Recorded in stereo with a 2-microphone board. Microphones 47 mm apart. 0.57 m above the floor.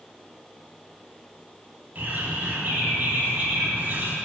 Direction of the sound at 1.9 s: 45° right (ahead or behind).